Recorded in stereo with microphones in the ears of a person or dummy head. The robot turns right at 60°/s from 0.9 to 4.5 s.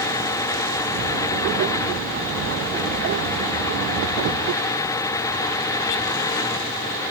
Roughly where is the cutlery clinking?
No cutlery clinking in this recording.